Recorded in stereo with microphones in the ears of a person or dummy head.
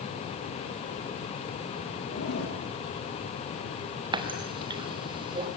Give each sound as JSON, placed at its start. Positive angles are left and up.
{"t": 2.1, "sound": "a zipper", "side_deg": 75, "distance_m": 8.0}
{"t": 4.1, "sound": "a running tap", "side_deg": -25, "distance_m": 2.5}